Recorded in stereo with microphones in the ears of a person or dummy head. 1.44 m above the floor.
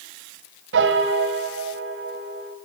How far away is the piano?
About 3 m.